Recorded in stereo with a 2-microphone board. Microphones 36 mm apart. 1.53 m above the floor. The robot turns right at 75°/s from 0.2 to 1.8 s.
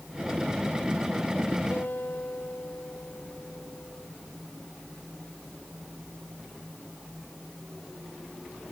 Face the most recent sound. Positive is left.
turn(degrees=70)  # may be behind; listen again after turning